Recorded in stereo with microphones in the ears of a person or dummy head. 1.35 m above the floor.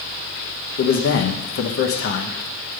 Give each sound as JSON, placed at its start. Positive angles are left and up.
{"t": 0.8, "sound": "a man speaking", "side_deg": 50, "distance_m": 0.9}